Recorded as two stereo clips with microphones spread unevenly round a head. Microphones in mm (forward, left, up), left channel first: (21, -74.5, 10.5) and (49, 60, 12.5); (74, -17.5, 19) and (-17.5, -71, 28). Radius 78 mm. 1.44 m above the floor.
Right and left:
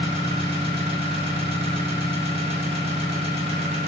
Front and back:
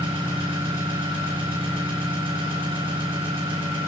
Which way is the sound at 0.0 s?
135° left.